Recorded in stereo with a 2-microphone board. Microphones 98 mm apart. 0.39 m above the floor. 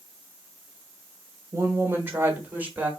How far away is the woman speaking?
About 1.1 m.